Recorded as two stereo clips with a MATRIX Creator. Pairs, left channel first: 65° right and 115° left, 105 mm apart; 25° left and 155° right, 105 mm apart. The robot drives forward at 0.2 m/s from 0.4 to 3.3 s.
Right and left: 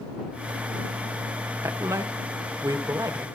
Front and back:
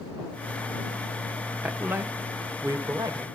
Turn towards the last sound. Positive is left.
turn(degrees=160)